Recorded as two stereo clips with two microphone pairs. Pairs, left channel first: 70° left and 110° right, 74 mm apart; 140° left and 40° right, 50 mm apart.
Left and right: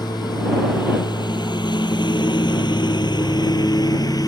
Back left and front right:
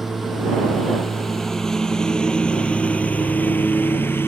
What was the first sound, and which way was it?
A lawn mower, 50° left.